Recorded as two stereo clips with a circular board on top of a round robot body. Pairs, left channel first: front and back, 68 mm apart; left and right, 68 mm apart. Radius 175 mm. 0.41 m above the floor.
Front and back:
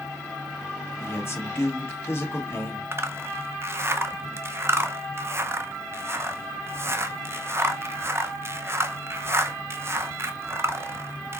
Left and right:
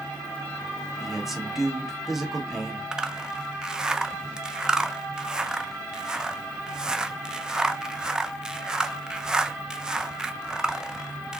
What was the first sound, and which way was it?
A man speaking, 5° right.